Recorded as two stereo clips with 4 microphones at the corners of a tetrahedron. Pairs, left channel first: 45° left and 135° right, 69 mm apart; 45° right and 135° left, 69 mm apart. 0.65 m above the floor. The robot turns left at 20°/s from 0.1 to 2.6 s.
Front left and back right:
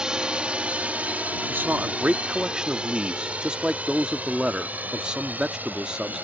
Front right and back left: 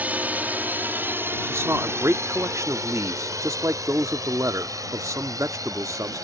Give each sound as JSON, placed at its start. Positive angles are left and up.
{"t": 0.0, "sound": "a drone", "azimuth_deg": 155}
{"t": 1.5, "sound": "a man speaking", "azimuth_deg": 170}